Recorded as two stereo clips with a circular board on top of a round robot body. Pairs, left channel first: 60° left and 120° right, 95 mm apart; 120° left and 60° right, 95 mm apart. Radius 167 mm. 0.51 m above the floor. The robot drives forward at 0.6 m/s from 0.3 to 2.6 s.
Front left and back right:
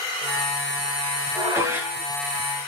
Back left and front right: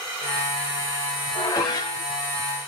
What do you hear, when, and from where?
1.4 s dishes clattering: 175° left, 1.7 m